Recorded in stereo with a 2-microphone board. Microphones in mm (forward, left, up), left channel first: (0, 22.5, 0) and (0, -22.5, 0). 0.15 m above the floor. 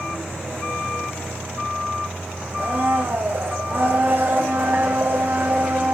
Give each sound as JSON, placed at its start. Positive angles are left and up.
{"t": 2.6, "sound": "a blender", "side_deg": -55, "distance_m": 1.9}